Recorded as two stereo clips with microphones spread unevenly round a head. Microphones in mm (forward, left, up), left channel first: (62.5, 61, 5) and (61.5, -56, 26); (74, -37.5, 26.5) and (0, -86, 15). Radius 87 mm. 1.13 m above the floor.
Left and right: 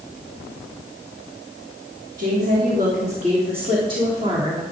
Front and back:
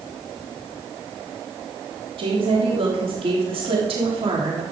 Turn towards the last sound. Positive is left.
turn(degrees=-160)